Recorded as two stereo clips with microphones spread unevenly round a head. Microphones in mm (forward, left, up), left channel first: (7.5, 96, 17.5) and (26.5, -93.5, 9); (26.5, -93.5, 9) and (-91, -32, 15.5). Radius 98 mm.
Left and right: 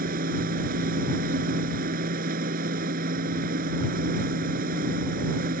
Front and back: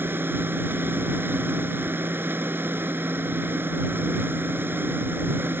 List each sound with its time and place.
0.0 s a machine running: 135° right